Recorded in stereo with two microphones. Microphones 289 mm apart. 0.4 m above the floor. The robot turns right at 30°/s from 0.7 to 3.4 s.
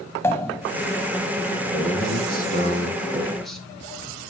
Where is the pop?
10° left (ahead or behind), 1.0 m.